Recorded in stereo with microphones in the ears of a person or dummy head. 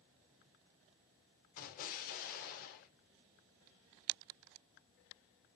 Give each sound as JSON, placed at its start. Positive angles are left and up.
{"t": 1.6, "sound": "an explosion", "side_deg": 50, "distance_m": 2.5}